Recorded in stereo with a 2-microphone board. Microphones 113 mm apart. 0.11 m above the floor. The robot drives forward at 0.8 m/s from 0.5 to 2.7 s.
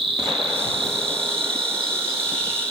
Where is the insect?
50° right (ahead or behind), 3.5 m; by 2.7 s 35° right (ahead or behind), 5 m.